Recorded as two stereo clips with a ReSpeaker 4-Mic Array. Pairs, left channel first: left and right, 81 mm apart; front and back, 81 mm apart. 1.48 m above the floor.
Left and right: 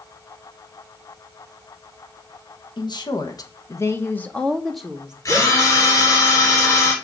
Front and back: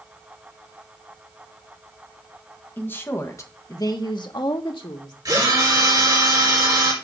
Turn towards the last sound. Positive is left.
turn(degrees=140)